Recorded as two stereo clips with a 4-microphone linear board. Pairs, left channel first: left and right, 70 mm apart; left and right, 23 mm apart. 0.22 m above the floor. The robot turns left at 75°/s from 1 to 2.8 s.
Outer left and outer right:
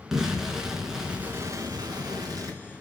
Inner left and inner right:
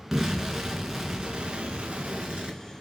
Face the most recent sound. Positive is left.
turn(degrees=-140)